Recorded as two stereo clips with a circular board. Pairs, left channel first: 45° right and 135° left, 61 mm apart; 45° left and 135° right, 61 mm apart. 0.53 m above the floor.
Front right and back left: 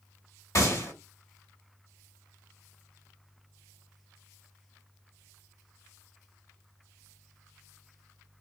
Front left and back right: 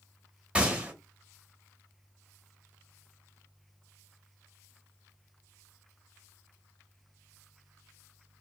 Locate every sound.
0.6 s a gunshot: 65° right, 1.1 m